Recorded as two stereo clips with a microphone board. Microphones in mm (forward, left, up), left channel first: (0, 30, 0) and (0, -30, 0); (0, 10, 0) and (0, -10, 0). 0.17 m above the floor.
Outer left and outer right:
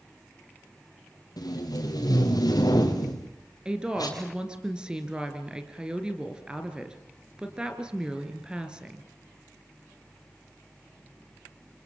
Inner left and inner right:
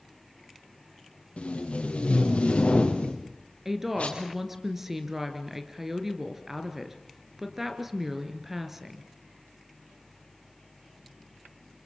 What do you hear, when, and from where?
1.4 s tape being pulled: 85° left, 4.5 m
3.6 s a woman speaking: 15° right (ahead or behind), 2.5 m